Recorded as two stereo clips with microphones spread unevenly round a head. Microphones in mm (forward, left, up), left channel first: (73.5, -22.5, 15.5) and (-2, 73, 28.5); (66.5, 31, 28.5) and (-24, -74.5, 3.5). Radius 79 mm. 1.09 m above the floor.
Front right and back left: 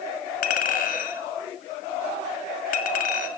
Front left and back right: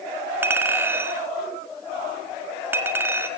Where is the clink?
55° right, 1.6 m.